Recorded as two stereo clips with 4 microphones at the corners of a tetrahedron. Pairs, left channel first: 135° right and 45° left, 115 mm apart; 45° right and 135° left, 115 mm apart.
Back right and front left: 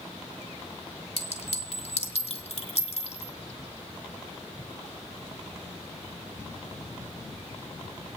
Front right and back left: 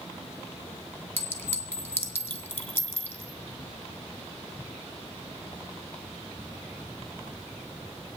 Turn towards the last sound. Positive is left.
turn(degrees=-120)